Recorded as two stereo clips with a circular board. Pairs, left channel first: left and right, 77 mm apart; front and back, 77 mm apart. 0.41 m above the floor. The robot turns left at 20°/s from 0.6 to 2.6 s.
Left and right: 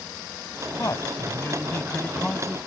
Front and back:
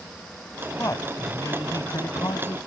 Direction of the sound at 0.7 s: 50° left.